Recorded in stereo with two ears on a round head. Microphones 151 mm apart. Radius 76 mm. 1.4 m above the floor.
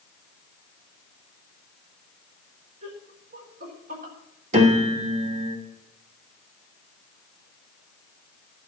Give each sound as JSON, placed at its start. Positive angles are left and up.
{"t": 2.8, "sound": "laughter", "side_deg": -45, "distance_m": 4.0}
{"t": 4.5, "sound": "a piano", "side_deg": -35, "distance_m": 2.0}